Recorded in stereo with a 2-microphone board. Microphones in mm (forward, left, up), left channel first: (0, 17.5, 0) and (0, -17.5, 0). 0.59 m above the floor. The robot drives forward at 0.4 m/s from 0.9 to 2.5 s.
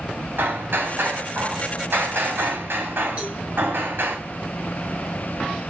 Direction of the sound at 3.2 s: 30° right (ahead or behind).